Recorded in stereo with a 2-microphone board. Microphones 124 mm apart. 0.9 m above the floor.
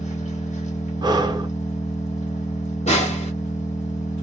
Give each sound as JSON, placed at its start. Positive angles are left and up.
{"t": 0.0, "sound": "an engine running", "side_deg": 75, "distance_m": 1.5}
{"t": 1.0, "sound": "breathing", "side_deg": -35, "distance_m": 0.6}
{"t": 2.9, "sound": "a snare drum", "side_deg": 65, "distance_m": 1.2}